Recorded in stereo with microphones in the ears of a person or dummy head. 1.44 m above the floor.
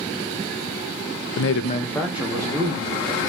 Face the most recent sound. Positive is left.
turn(degrees=-25)  # may be behind; listen again after turning